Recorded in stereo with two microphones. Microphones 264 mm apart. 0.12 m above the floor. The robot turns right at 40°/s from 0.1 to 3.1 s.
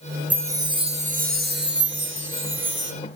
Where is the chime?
170° right, 1.9 m; by 2.9 s 70° right, 1.9 m.